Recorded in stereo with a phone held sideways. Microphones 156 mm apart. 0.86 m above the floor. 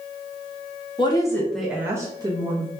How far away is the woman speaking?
About 0.7 m.